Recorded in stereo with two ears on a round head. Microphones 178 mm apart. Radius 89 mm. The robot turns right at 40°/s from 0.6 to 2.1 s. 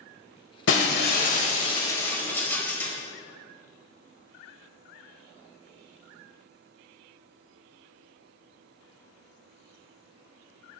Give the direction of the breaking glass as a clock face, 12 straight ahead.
8 o'clock.